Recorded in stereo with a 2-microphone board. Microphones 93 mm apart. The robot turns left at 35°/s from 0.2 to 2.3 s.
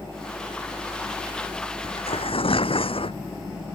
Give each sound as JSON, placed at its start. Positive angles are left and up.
{"t": 1.8, "sound": "tearing paper", "side_deg": 90}